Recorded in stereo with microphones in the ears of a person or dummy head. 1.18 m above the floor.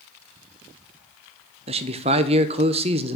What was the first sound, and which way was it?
A man speaking, 25° right (ahead or behind).